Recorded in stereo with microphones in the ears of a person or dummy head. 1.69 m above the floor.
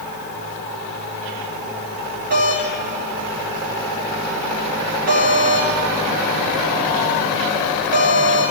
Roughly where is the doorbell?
Right.